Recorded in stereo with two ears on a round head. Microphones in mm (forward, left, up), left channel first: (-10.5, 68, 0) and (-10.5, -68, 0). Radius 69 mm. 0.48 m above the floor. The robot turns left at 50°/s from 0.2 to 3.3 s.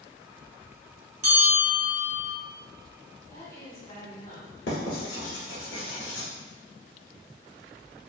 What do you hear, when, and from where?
1.2 s a bell: 50° right, 1.1 m; by 2.4 s 110° right, 1.1 m
3.3 s a woman speaking: 30° left (ahead or behind), 1.9 m
4.7 s writing: 85° left, 1.2 m